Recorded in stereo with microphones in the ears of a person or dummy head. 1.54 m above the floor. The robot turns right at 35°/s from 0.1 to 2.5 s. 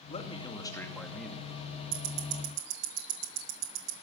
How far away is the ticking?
About 1.5 m.